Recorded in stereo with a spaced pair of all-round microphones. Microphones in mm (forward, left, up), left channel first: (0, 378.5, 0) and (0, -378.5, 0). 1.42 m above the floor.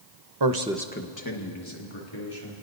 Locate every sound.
0.4 s a man speaking: 35° right (ahead or behind), 0.8 m; by 2.5 s 45° left (ahead or behind), 3 m